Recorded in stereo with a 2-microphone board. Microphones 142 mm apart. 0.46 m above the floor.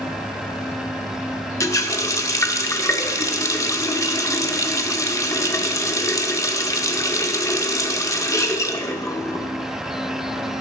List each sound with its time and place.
1.6 s a running tap: 20° left (ahead or behind), 0.5 m